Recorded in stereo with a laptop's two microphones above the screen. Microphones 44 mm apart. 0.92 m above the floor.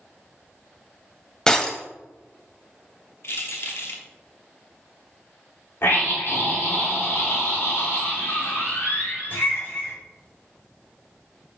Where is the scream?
60° left (ahead or behind), 2.5 m.